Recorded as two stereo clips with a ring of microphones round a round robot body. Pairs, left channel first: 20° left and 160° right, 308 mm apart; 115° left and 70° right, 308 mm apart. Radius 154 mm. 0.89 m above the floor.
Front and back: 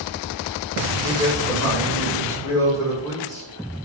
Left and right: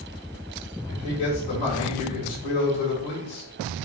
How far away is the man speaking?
About 3.5 m.